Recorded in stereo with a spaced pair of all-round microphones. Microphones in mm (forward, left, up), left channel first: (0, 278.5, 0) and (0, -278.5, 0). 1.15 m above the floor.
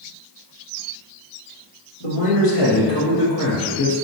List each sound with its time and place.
2.0 s a man speaking: 70° left (ahead or behind), 1.5 m; by 4.0 s 10° left (ahead or behind), 1.0 m